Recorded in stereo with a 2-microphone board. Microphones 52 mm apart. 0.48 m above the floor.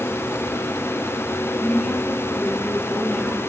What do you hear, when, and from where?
1.6 s a woman speaking: 20° left (ahead or behind), 5.5 m; by 3.4 s 10° left (ahead or behind), 5.5 m